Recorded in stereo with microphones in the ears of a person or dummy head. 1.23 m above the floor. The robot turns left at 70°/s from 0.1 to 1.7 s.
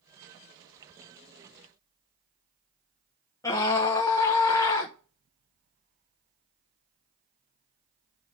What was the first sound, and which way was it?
A scream, 15° left (ahead or behind).